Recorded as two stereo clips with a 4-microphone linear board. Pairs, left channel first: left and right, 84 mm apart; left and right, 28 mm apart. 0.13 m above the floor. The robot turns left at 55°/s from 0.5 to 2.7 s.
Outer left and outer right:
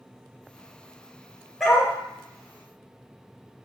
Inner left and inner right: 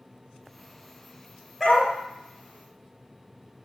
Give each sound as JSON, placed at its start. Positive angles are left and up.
{"t": 1.6, "sound": "a dog barking", "side_deg": 5, "distance_m": 1.2}